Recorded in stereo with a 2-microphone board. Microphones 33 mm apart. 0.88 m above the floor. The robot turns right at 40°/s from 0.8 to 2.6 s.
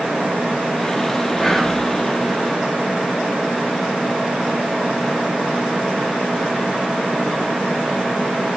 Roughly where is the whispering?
Centre.